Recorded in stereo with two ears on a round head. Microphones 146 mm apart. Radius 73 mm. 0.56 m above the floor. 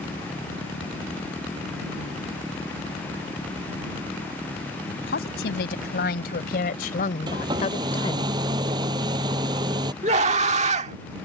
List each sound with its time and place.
4.9 s a woman speaking: 80° left; by 8.3 s 30° left (ahead or behind)
7.3 s a hair dryer: 25° right (ahead or behind)
10.0 s a scream: 45° right (ahead or behind)